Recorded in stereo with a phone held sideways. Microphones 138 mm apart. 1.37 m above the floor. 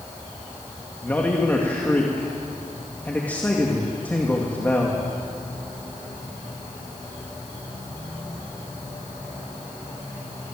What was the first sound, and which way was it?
A man speaking, 15° left (ahead or behind).